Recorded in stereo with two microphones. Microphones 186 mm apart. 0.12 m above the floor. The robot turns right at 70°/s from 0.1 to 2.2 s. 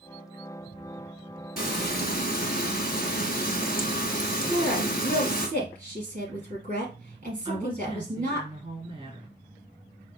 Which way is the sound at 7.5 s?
30° right (ahead or behind).